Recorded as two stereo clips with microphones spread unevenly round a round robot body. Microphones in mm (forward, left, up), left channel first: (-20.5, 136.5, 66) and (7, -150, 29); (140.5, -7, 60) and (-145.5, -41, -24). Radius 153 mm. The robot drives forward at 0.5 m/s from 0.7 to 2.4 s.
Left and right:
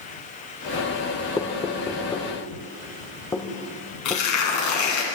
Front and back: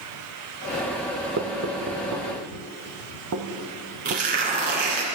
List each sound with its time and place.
1.4 s knocking: 175° left, 1.0 m
4.0 s tearing paper: 125° left, 3.5 m